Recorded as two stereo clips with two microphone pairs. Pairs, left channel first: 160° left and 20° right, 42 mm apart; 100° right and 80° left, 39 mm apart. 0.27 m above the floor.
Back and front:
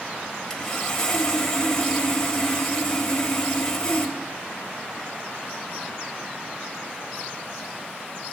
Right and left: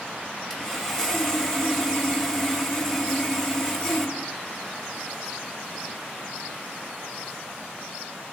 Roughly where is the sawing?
Behind right.